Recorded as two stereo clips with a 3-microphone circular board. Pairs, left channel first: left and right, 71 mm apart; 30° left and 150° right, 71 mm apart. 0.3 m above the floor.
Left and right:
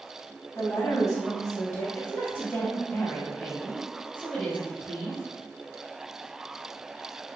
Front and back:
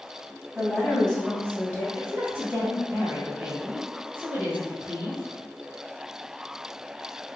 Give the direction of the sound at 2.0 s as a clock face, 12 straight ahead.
7 o'clock.